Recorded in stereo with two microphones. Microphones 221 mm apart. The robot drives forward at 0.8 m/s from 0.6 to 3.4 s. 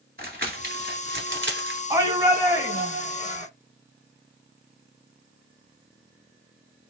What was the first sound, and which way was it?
Crumpling, 45° right (ahead or behind).